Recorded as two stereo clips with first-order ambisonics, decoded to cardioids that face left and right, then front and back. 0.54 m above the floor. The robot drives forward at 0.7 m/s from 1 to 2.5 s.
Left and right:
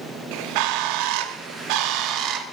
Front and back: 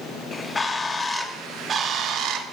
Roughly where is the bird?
Right.